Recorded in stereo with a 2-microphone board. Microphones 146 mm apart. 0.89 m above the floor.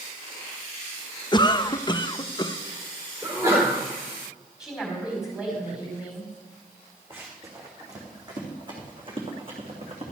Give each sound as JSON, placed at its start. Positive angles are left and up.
{"t": 1.3, "sound": "a cough", "side_deg": 30, "distance_m": 0.5}
{"t": 3.2, "sound": "a sneeze", "side_deg": -20, "distance_m": 3.0}
{"t": 4.6, "sound": "a woman speaking", "side_deg": -5, "distance_m": 5.0}
{"t": 7.1, "sound": "running footsteps", "side_deg": -15, "distance_m": 3.5}